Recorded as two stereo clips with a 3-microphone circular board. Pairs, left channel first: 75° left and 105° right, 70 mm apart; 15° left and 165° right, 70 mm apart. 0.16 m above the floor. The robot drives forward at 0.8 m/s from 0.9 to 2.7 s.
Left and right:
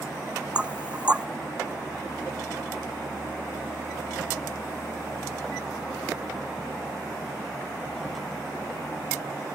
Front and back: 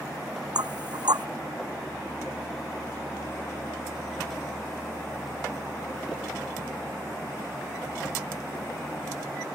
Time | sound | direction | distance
0.6 | knocking | straight behind | ?